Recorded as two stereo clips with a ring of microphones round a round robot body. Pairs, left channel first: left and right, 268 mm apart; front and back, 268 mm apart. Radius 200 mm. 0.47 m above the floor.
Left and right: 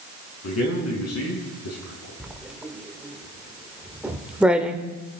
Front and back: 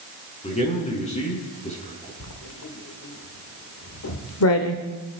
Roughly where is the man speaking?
Ahead left.